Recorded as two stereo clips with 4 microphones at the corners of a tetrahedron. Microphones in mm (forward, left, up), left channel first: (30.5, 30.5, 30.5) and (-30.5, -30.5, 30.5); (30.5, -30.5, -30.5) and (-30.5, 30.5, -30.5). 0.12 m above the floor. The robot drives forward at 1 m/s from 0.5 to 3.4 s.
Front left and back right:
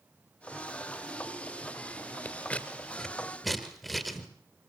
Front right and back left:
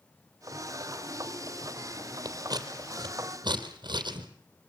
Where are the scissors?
110° left, 2 m; by 4.3 s 135° left, 2.5 m.